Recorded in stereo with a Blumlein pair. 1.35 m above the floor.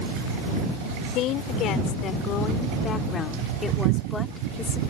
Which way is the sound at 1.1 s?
35° left.